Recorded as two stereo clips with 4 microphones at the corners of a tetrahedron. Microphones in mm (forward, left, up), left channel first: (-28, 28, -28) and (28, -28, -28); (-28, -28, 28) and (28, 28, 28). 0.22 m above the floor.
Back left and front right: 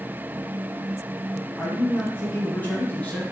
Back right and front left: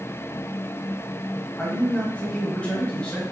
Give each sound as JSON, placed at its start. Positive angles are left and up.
{"t": 1.6, "sound": "a man speaking", "azimuth_deg": 165, "distance_m": 1.0}